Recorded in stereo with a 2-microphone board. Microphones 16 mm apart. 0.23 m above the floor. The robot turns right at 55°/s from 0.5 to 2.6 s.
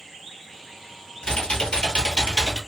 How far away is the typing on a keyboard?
About 1.1 m.